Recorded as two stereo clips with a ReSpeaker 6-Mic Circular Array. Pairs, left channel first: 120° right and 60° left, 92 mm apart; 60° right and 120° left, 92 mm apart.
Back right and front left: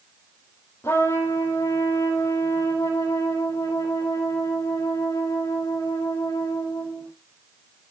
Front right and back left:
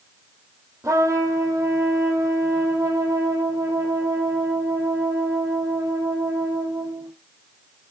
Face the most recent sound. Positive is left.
turn(degrees=175)